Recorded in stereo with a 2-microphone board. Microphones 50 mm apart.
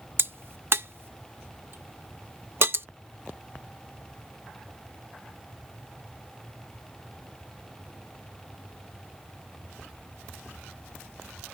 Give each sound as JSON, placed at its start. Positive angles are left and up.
{"t": 0.2, "sound": "a crack", "side_deg": -50}